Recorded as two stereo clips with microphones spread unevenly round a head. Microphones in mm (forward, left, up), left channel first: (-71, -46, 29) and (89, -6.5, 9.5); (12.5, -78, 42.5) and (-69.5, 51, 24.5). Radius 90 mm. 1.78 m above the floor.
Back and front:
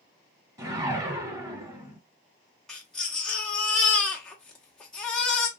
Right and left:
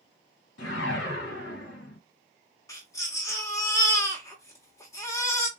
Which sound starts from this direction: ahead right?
A whoosh, at 0.6 s.